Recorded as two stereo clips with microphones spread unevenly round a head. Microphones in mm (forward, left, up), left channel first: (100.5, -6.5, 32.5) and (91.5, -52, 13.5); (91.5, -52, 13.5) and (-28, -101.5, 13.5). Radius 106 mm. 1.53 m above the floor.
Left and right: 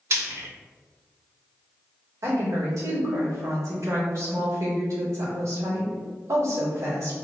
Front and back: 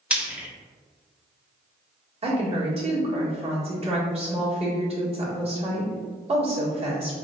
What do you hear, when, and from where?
0.1 s frying: 75° right, 0.8 m
2.2 s a woman speaking: 115° right, 2.0 m